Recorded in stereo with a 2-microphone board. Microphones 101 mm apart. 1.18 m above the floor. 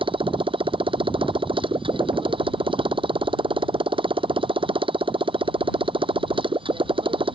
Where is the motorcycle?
55° right (ahead or behind).